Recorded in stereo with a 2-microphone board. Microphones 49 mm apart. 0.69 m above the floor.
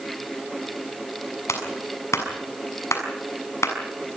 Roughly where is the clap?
Left.